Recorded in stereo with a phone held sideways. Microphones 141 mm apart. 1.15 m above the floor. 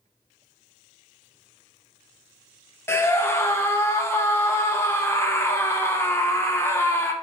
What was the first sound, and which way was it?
A scream, 20° left (ahead or behind).